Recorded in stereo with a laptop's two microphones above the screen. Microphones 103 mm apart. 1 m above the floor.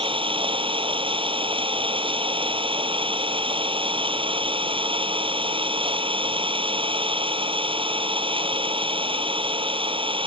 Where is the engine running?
55° right (ahead or behind).